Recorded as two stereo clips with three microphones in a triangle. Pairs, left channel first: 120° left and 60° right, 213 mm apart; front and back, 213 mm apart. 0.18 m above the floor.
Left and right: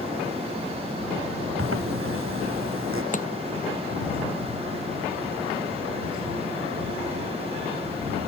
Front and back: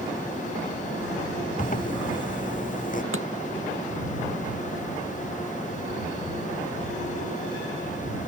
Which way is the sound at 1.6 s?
50° right.